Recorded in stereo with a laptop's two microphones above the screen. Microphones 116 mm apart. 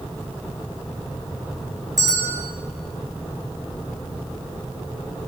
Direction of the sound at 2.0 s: 30° right (ahead or behind).